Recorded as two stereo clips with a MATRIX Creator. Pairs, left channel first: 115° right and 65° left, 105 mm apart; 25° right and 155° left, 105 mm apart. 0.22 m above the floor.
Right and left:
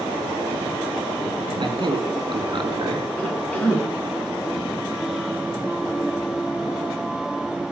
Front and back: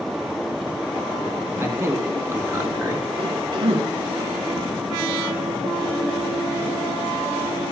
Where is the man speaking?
100° left, 2 m.